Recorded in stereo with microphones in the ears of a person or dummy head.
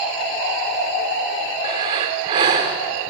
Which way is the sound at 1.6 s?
30° right (ahead or behind).